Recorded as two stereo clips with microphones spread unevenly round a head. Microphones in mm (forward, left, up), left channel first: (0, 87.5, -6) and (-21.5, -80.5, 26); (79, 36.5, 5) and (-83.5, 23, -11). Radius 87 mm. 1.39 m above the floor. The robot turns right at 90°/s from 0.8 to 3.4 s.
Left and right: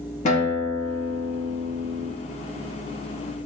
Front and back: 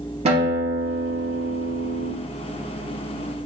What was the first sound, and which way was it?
A guitar, 135° left.